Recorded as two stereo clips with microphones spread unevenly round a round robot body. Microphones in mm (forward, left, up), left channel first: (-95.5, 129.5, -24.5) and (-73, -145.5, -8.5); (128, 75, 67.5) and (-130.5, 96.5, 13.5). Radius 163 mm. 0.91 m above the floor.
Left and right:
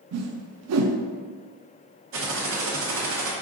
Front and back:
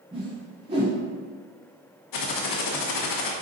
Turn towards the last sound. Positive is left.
turn(degrees=-30)